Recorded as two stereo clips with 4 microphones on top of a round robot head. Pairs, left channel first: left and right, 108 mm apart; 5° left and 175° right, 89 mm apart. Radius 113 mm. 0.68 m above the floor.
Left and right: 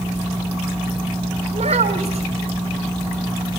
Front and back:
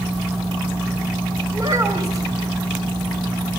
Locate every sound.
1.5 s a child speaking: 115° right, 2.5 m